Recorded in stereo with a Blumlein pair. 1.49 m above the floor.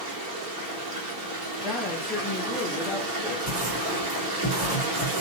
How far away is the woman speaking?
About 0.8 m.